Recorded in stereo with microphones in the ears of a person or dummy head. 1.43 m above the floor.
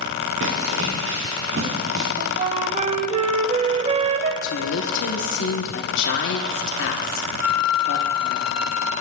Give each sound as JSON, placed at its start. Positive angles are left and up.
{"t": 0.4, "sound": "running footsteps", "side_deg": -75, "distance_m": 5.5}
{"t": 2.2, "sound": "a flute", "side_deg": -40, "distance_m": 0.5}
{"t": 4.4, "sound": "a woman speaking", "side_deg": 75, "distance_m": 1.1}
{"t": 7.4, "sound": "a flute", "side_deg": 65, "distance_m": 1.7}